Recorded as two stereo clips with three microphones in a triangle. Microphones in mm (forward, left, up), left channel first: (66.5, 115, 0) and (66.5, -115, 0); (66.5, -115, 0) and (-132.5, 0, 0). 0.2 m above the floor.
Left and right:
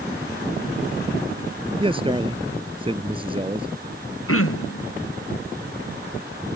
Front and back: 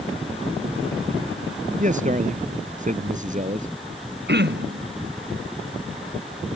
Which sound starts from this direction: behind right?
A man speaking, at 1.8 s.